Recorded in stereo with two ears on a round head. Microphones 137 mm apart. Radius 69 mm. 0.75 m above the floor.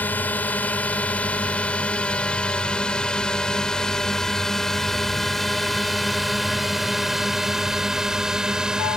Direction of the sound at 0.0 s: 10° left (ahead or behind).